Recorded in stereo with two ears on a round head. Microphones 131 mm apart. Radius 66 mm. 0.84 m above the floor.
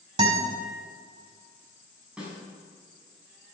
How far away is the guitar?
About 4.5 m.